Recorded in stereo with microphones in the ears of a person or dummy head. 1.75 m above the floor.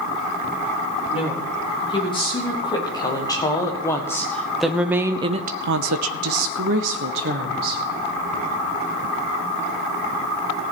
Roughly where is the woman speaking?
Left.